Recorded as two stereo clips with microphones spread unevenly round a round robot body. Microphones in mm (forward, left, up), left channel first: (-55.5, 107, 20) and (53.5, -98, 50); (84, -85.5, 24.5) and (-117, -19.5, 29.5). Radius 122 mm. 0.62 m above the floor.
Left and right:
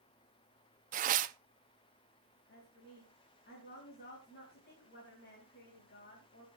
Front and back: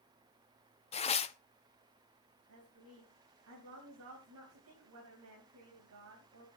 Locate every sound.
0.9 s tearing paper: 35° right, 0.7 m
2.5 s a woman speaking: 165° left, 3.5 m